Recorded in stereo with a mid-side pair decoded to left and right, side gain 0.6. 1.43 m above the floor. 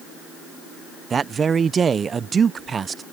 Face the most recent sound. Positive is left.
turn(degrees=-30)